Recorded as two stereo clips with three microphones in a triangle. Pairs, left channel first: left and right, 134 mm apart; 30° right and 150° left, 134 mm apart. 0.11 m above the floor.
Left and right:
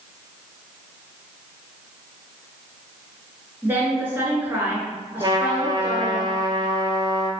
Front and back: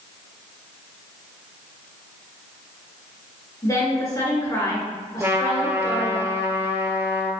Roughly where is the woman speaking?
Ahead right.